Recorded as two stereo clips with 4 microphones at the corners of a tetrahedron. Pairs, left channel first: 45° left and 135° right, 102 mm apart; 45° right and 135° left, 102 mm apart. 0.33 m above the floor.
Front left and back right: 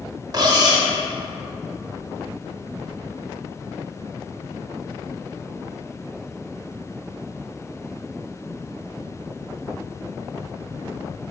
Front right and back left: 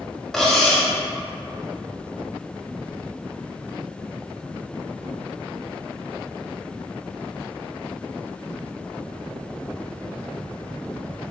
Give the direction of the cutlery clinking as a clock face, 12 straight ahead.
4 o'clock.